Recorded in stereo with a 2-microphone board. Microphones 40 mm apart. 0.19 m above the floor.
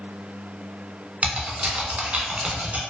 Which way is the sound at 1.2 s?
35° right (ahead or behind).